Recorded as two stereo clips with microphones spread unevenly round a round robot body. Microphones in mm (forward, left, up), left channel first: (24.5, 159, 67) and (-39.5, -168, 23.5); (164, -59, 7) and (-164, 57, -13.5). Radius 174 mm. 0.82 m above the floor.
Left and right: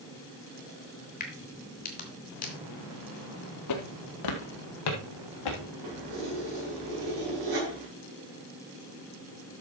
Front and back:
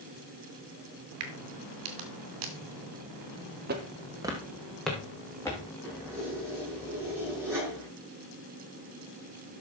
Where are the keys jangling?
115° right, 6 m.